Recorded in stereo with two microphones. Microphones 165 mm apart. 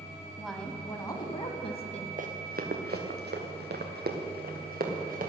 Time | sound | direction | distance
0.4 | a woman speaking | 5° right (ahead or behind) | 1.4 m
2.2 | running footsteps | 55° right (ahead or behind) | 1.7 m